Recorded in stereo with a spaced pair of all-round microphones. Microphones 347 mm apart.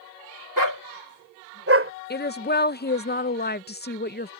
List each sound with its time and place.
0.6 s a dog barking: 65° right (ahead or behind); by 1.9 s 35° right (ahead or behind)
2.1 s a woman speaking: 30° left (ahead or behind)